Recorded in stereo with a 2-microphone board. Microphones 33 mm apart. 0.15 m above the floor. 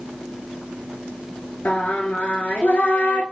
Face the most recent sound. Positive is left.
turn(degrees=55)  # may be behind; listen again after turning